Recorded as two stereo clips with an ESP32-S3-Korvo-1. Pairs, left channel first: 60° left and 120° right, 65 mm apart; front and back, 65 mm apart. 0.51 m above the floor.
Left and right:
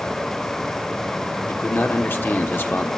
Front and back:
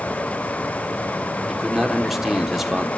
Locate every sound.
1.5 s a man speaking: 95° left, 1.4 m